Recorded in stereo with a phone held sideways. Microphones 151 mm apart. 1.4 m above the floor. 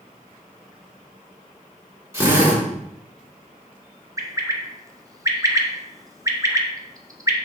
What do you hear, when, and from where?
2.1 s a drill: 20° right (ahead or behind), 3 m
4.2 s a bird: 25° right (ahead or behind), 0.8 m